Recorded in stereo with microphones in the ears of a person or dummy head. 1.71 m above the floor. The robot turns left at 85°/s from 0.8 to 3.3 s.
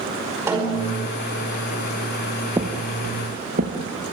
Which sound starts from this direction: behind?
A snare drum, at 0.5 s.